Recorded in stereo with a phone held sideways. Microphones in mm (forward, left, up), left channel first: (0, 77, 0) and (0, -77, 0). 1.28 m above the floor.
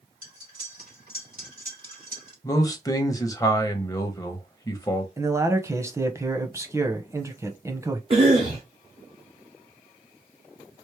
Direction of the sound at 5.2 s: 20° right (ahead or behind).